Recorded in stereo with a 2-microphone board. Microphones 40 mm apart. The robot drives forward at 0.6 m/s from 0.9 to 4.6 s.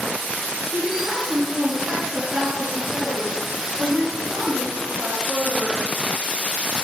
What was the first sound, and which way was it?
A woman speaking, 65° right (ahead or behind).